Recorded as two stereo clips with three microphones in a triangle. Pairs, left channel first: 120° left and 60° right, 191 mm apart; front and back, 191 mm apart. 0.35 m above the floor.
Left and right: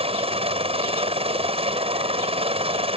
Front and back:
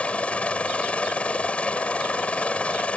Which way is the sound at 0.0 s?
80° right.